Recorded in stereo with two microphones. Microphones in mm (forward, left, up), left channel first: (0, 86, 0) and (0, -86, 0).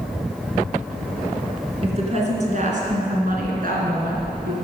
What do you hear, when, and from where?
1.8 s a woman speaking: 40° right (ahead or behind), 2.5 m; by 4.5 s 70° right (ahead or behind), 2.5 m